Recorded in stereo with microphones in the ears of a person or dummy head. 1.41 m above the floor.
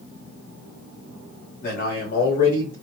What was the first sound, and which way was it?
A man speaking, 45° left (ahead or behind).